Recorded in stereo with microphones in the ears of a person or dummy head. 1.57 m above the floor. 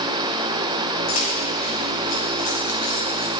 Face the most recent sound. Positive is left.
turn(degrees=25)  # may be behind; listen again after turning